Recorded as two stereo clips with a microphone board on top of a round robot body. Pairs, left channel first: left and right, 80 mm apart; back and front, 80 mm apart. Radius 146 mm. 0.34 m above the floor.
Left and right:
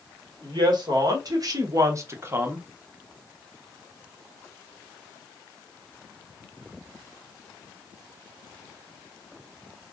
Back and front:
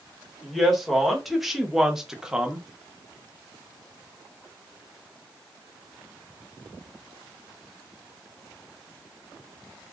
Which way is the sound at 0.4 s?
90° right.